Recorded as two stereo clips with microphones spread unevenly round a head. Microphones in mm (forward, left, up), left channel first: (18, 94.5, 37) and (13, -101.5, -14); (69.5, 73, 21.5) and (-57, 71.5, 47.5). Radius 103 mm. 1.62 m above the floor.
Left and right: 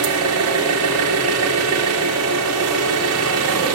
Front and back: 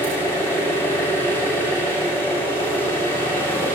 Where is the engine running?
85° right, 3 m.